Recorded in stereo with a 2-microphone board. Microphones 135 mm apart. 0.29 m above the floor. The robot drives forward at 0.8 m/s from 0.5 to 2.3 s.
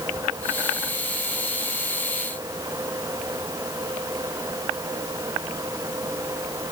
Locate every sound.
Only background noise.